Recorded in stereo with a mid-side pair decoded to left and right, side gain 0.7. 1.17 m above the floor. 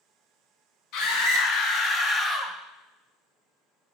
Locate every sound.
0.9 s a scream: 65° left, 1.0 m; by 2.6 s 5° left, 0.5 m